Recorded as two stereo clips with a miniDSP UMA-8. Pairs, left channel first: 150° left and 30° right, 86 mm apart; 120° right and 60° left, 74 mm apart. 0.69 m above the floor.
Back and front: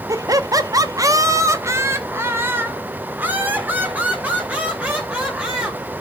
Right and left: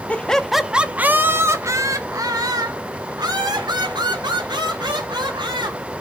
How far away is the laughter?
About 0.7 m.